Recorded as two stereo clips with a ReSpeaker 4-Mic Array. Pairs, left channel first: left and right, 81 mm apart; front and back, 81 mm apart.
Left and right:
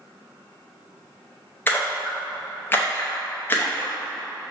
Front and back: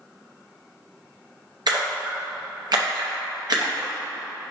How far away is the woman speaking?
I don't hear a woman speaking.